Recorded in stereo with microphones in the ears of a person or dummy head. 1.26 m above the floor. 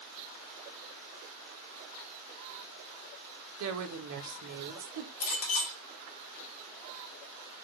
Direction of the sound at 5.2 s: 75° left (ahead or behind).